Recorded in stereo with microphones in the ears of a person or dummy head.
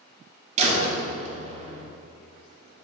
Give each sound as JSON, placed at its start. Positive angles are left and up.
{"t": 0.6, "sound": "a door slam", "side_deg": -40, "distance_m": 1.8}